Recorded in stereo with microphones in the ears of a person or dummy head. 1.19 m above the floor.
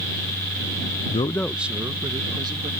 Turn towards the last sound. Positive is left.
turn(degrees=-20)  # may be behind; listen again after turning